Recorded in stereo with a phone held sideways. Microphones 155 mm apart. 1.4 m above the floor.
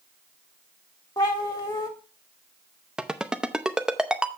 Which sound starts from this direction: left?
A cat meowing, at 1.2 s.